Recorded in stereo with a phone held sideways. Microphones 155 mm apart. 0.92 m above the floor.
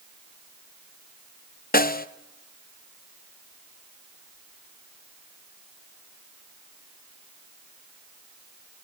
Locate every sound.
1.7 s a snare drum: 70° left (ahead or behind), 0.6 m